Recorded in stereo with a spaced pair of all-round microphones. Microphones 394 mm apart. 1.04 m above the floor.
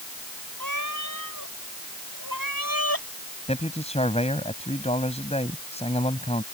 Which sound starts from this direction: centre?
A man speaking, at 3.5 s.